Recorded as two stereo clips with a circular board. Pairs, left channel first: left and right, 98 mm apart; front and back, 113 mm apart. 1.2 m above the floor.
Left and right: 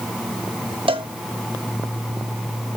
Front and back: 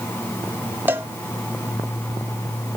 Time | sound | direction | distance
0.9 | a cowbell | 105° right | 1.1 m